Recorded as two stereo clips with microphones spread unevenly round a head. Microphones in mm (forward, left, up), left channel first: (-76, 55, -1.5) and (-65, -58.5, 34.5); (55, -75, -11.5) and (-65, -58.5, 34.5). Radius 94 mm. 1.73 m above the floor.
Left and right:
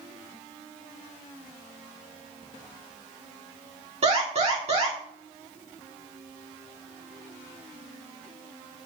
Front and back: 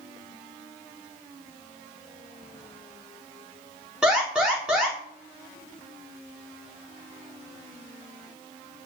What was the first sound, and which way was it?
An alarm, 110° right.